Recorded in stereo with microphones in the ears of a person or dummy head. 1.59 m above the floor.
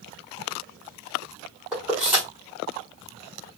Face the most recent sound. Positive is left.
turn(degrees=0)  # may be behind; listen again after turning